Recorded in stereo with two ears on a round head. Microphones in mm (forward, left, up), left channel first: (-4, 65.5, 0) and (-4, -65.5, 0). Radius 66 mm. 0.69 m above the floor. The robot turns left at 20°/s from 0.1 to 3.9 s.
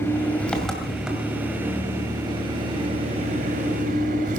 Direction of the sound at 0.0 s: 15° left.